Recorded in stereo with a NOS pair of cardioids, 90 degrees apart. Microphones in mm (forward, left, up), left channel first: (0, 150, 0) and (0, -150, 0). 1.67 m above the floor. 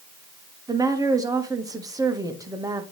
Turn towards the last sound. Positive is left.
turn(degrees=-10)